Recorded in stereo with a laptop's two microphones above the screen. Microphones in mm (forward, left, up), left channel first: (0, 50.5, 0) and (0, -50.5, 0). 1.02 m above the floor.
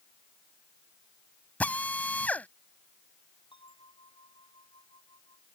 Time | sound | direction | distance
1.6 | a drill | 15° left (ahead or behind) | ?
3.5 | a bell | 55° left (ahead or behind) | ?